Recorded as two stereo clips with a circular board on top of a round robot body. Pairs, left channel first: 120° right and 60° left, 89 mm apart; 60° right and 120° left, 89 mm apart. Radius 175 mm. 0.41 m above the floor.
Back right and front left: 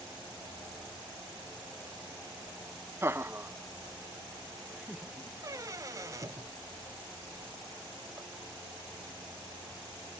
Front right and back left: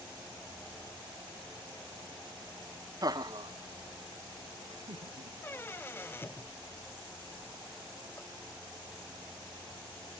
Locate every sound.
3.0 s laughter: 105° left; by 5.3 s 140° left
5.4 s a squeak: 5° left